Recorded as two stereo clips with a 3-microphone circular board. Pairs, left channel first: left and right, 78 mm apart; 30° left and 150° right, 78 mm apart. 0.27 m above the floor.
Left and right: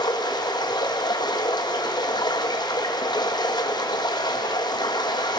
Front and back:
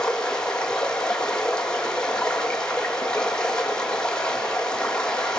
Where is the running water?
110° left, 1.7 m.